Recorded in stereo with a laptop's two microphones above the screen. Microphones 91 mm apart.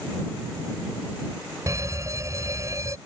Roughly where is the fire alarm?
Right.